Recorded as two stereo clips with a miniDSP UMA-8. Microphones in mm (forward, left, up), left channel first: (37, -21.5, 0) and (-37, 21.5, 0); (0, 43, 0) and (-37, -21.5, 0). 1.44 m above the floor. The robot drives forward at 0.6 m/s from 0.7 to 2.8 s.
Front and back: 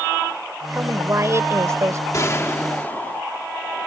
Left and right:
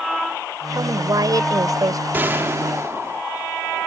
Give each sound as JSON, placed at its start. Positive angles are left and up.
{"t": 0.7, "sound": "a woman speaking", "azimuth_deg": -150}
{"t": 2.1, "sound": "a gunshot", "azimuth_deg": -65}